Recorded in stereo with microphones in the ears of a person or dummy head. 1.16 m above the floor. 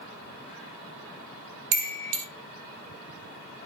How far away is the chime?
About 0.6 m.